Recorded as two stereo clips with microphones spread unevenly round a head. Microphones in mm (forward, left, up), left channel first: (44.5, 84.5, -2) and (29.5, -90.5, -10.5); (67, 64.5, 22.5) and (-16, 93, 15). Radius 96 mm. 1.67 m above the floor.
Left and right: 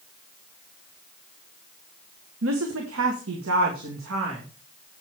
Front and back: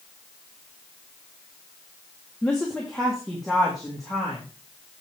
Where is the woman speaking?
105° right, 1.4 m; by 4.4 s 110° right, 2.5 m.